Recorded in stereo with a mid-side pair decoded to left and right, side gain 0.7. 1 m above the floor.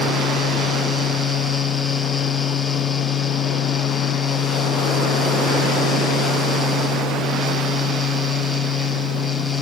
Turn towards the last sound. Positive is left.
turn(degrees=10)